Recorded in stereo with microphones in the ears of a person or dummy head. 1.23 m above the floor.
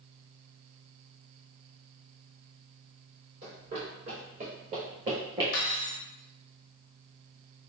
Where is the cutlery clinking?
50° left (ahead or behind), 0.6 m.